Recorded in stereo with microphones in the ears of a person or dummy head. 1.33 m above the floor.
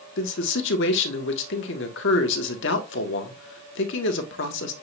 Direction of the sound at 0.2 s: 65° left (ahead or behind).